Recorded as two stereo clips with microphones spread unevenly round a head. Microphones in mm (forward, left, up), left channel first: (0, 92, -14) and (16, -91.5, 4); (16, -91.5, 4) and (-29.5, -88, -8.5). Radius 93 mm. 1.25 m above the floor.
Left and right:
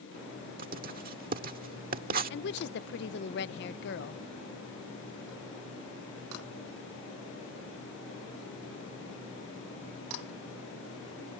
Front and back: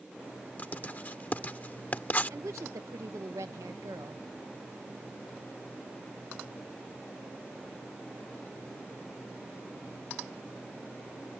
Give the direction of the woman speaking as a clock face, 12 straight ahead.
8 o'clock.